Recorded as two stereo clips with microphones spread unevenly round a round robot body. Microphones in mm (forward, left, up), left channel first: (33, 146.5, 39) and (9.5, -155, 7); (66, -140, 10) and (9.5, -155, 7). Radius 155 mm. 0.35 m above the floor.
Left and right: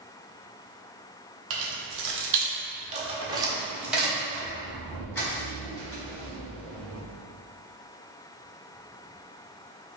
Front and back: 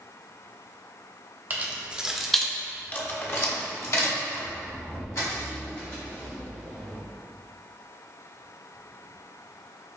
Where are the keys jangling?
115° right, 1.0 m; by 7.0 s 10° left, 3 m.